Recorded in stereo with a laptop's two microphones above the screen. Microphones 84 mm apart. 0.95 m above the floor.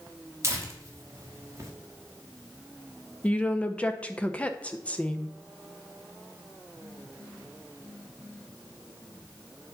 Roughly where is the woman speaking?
Centre.